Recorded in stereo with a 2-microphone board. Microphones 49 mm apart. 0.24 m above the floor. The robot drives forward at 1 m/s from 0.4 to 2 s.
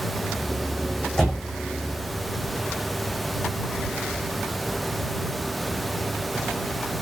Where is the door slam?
10° left (ahead or behind), 9.5 m.